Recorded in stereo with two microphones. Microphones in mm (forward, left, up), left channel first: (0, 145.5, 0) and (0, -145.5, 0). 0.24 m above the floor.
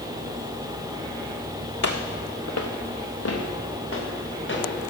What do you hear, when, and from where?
1.8 s footsteps: 75° left (ahead or behind), 1.1 m; by 4.6 s 45° left (ahead or behind), 3 m